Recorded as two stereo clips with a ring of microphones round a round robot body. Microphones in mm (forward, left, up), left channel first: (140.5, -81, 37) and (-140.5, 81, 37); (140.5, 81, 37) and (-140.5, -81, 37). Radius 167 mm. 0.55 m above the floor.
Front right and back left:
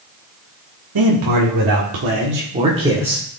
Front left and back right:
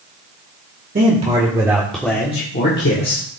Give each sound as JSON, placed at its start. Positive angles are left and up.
{"t": 0.9, "sound": "a man speaking", "azimuth_deg": 150, "distance_m": 1.9}